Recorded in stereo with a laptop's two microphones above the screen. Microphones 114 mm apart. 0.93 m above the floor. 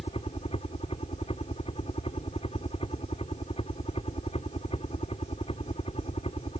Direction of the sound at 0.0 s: 60° left (ahead or behind).